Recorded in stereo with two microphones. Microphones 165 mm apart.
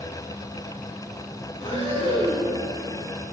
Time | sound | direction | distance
1.6 | breathing | 45° left (ahead or behind) | 3 m